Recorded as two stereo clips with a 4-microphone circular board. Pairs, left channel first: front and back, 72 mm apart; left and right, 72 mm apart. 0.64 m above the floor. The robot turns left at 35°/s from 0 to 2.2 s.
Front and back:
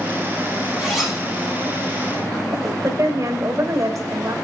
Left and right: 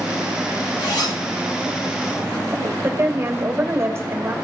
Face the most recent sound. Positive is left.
turn(degrees=-145)